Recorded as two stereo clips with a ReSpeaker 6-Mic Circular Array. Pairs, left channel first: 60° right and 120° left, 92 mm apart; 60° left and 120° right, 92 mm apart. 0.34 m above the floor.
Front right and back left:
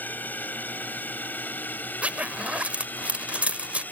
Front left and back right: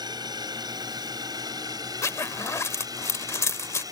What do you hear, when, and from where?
0.0 s a drone: 125° right; by 3.9 s 120° right
2.0 s a zipper: 60° left